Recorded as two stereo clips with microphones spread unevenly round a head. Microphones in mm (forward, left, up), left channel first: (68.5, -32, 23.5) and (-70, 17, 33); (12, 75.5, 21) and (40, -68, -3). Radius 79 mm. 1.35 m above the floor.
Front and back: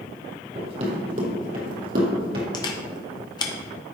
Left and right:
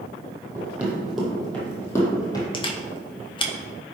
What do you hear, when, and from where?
0.6 s running footsteps: 160° right, 2 m; by 2.4 s 160° left, 2.5 m
2.5 s a camera shutter: 40° left, 1.0 m